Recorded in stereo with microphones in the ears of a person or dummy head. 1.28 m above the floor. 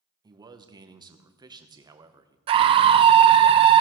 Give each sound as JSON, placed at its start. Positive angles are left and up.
{"t": 0.2, "sound": "a man speaking", "side_deg": -20, "distance_m": 0.8}
{"t": 2.5, "sound": "a scream", "side_deg": -30, "distance_m": 0.6}